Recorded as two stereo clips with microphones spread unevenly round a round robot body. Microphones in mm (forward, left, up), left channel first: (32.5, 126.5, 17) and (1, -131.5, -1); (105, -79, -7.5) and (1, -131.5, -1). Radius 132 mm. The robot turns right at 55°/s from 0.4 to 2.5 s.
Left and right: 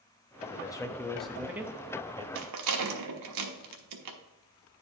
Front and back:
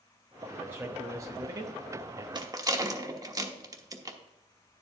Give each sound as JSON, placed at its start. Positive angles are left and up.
{"t": 0.5, "sound": "a man speaking", "azimuth_deg": 140, "distance_m": 0.7}
{"t": 2.4, "sound": "a rattle", "azimuth_deg": -105, "distance_m": 1.2}